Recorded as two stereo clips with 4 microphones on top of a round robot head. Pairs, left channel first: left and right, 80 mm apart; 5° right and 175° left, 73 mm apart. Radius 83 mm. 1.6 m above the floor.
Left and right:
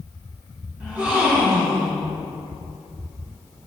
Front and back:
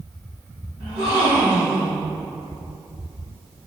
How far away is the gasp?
About 2 m.